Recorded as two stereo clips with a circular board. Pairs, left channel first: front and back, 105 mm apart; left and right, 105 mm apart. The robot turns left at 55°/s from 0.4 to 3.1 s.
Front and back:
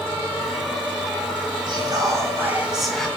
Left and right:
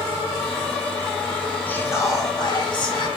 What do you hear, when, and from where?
1.7 s whispering: 160° left, 1.8 m; by 3.1 s 80° left, 1.8 m